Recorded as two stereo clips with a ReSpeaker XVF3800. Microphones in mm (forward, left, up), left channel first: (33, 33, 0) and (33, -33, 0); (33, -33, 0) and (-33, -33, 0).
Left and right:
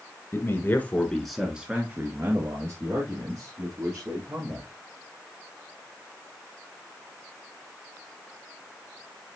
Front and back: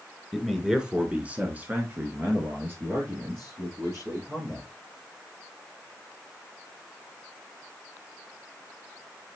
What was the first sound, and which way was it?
A man speaking, 95° left.